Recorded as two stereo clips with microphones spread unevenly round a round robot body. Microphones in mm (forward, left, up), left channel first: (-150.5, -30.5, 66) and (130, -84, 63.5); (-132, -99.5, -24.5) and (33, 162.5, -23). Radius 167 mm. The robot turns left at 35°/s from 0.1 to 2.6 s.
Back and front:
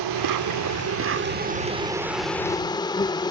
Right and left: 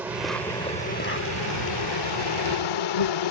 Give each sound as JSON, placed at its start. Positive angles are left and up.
{"t": 0.0, "sound": "an insect", "azimuth_deg": -25}